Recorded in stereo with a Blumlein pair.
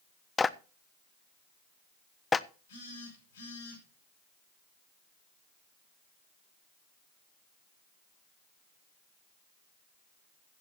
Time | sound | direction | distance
0.4 | a clap | 15° left | 0.5 m
2.7 | a phone buzzing | 60° left | 6.5 m